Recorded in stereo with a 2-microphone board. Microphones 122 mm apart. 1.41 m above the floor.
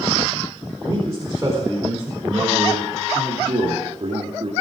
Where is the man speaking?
20° right (ahead or behind), 4.5 m; by 4.5 s 60° right (ahead or behind), 2.5 m.